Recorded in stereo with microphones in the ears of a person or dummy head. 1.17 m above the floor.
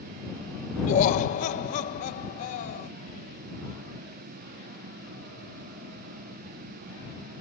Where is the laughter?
50° left (ahead or behind).